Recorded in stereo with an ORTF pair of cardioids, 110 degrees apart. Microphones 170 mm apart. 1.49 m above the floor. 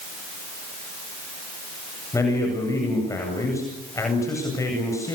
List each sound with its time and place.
2.1 s a man speaking: 20° left, 8 m